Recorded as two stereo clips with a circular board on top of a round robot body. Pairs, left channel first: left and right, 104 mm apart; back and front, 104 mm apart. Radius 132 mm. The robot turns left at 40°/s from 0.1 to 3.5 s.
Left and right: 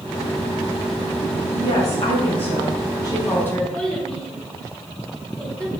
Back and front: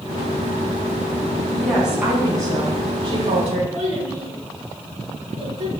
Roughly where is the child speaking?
Ahead.